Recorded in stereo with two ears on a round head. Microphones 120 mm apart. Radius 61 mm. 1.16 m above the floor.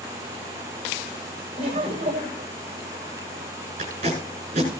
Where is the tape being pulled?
50° right (ahead or behind), 8 m.